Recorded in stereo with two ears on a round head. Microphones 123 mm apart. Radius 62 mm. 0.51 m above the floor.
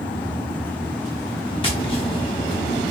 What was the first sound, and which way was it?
Tapping, 40° left (ahead or behind).